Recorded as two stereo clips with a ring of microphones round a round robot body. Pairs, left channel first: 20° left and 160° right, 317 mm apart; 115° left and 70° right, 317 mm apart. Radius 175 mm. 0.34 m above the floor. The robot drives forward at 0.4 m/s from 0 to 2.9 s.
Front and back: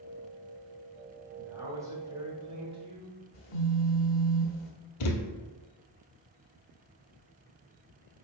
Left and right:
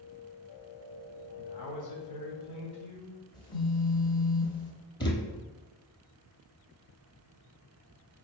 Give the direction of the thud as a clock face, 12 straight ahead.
11 o'clock.